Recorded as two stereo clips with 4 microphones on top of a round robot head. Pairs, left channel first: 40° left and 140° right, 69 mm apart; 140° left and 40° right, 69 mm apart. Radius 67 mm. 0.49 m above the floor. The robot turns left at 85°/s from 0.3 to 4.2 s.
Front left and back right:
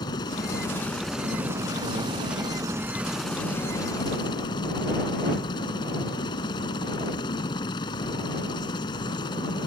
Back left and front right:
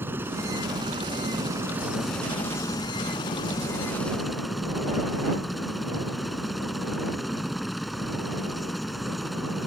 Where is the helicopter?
20° left; by 9.7 s 50° left.